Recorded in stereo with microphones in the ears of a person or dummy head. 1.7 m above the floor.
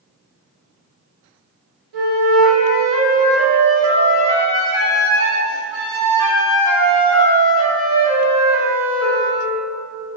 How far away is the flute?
About 1.2 m.